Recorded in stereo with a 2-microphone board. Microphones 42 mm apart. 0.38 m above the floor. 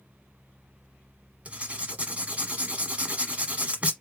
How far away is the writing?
About 1.0 m.